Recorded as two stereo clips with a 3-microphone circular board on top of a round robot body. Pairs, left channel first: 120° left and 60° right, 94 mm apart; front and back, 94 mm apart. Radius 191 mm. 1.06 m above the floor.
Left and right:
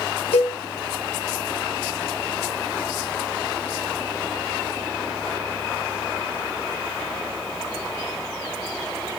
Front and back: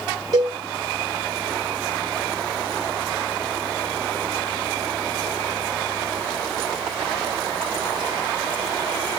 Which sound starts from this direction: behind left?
A cowbell, at 0.3 s.